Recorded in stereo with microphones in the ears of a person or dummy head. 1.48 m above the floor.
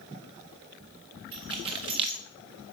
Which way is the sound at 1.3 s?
20° right (ahead or behind).